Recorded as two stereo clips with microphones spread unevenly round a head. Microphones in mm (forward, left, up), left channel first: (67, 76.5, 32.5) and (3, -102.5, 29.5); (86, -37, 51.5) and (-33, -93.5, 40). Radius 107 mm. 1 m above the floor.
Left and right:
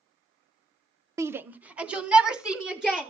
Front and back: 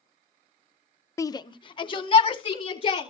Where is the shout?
40° right, 0.6 m; by 3.1 s 25° right, 3.5 m.